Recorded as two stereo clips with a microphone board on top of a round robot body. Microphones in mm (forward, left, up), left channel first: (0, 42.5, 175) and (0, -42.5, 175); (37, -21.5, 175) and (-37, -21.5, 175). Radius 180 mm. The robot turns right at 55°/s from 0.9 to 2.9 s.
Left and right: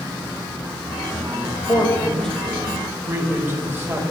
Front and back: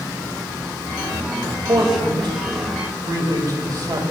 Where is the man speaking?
135° left, 5 m; by 4.0 s 150° right, 5 m.